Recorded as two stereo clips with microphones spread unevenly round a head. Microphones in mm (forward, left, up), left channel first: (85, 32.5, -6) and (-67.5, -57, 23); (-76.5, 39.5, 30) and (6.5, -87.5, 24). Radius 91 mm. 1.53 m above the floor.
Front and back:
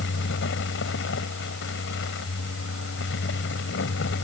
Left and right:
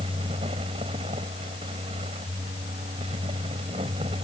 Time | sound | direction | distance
0.0 | a fan | 5° left | ?